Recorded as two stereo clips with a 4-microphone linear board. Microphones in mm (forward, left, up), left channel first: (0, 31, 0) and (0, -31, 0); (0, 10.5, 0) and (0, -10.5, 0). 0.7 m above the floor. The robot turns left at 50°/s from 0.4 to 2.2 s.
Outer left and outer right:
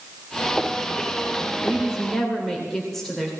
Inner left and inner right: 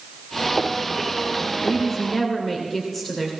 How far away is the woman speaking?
About 2.5 m.